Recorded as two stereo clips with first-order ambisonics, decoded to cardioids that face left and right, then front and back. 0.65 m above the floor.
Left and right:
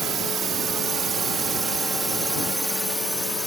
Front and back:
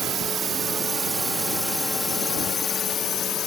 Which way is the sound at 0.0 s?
140° right.